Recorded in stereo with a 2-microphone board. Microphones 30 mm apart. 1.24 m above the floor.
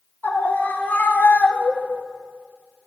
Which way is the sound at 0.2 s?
80° left.